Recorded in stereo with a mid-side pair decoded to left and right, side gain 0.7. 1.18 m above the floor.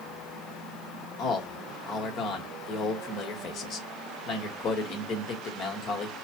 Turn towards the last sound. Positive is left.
turn(degrees=50)